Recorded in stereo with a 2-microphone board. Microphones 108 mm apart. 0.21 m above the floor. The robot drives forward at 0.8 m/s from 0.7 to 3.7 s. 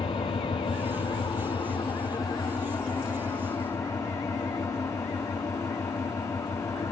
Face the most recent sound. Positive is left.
turn(degrees=30)  # may be behind; listen again after turning